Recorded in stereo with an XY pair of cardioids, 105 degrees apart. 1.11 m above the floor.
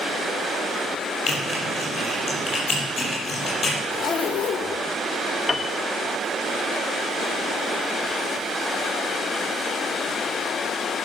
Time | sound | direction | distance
1.3 | typing on a keyboard | 40° left | 6.5 m
3.9 | a zipper | 55° left | 1.4 m
5.5 | a piano | 20° left | 0.7 m